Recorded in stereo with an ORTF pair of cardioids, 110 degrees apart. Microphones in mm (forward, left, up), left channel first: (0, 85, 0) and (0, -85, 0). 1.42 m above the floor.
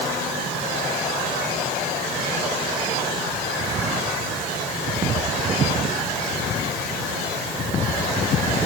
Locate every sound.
Only background noise.